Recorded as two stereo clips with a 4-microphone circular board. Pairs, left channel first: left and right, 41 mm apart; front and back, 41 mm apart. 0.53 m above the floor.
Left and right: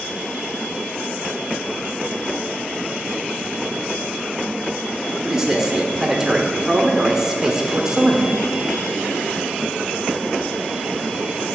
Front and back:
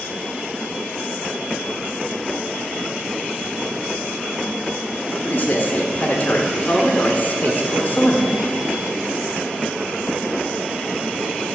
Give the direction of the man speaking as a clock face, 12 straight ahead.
1 o'clock.